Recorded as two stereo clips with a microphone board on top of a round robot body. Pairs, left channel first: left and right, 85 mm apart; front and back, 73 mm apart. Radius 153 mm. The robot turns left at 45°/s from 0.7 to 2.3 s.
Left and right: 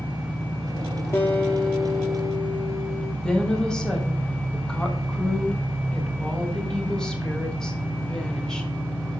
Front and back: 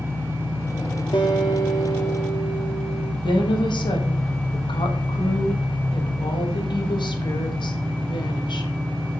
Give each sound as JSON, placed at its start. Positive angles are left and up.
{"t": 0.0, "sound": "an engine running", "azimuth_deg": -125, "distance_m": 1.3}
{"t": 1.1, "sound": "a guitar", "azimuth_deg": 30, "distance_m": 0.6}
{"t": 3.2, "sound": "a woman speaking", "azimuth_deg": 5, "distance_m": 1.6}